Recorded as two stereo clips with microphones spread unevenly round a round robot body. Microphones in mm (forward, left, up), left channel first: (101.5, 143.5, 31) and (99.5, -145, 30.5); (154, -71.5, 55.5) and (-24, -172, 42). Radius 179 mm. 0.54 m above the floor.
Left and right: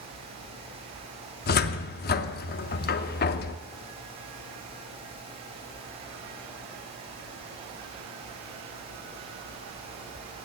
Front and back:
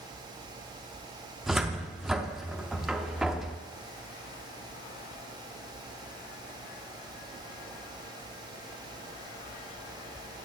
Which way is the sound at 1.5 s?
125° left.